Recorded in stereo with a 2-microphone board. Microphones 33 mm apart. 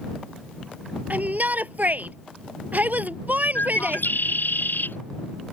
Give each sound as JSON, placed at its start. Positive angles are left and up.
{"t": 1.1, "sound": "a shout", "side_deg": -55}
{"t": 3.5, "sound": "a bird", "side_deg": 75}